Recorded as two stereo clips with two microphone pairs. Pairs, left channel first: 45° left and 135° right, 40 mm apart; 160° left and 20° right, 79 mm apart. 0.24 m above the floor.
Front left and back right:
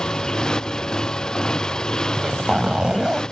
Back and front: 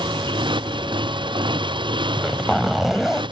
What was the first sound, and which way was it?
A motorcycle, 25° right.